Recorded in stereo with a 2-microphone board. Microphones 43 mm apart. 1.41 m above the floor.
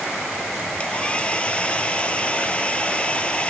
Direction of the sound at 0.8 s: 25° left (ahead or behind).